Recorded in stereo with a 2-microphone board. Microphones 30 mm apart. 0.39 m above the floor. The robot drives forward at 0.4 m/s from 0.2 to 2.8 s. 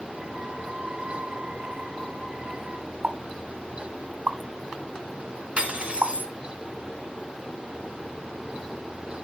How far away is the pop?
About 0.8 m.